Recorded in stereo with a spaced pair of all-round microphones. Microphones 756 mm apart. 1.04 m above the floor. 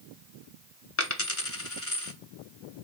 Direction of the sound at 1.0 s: 20° left (ahead or behind).